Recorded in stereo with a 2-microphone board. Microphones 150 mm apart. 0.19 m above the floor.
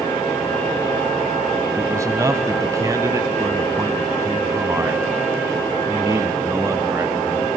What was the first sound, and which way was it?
A man speaking, 20° right (ahead or behind).